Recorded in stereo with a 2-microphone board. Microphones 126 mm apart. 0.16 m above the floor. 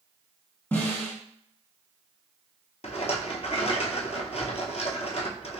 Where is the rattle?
60° left (ahead or behind), 0.6 m.